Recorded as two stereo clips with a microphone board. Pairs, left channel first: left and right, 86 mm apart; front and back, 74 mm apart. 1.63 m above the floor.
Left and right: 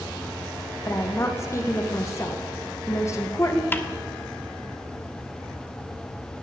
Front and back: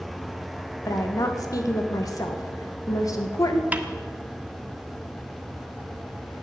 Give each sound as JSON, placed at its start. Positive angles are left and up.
{"t": 0.8, "sound": "a woman speaking", "azimuth_deg": 35, "distance_m": 2.0}
{"t": 3.7, "sound": "a snare drum", "azimuth_deg": 130, "distance_m": 1.3}